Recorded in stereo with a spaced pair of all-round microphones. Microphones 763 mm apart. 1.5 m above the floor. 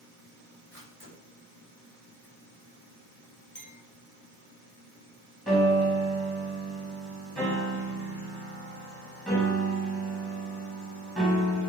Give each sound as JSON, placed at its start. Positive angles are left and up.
{"t": 0.7, "sound": "a camera shutter", "side_deg": -15, "distance_m": 7.0}
{"t": 3.5, "sound": "a clink", "side_deg": 30, "distance_m": 4.0}
{"t": 5.5, "sound": "a piano", "side_deg": 0, "distance_m": 5.0}